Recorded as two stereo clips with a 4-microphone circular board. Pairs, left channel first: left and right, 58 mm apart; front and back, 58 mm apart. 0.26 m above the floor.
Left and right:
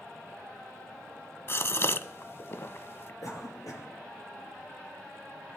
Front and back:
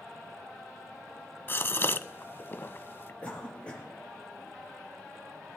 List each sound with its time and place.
1.5 s a gasp: 45° left, 0.6 m
3.2 s a cough: 70° left, 6 m